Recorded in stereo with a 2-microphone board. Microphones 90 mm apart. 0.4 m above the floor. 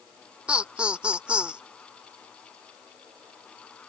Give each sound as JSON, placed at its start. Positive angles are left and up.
{"t": 0.5, "sound": "laughter", "side_deg": -10}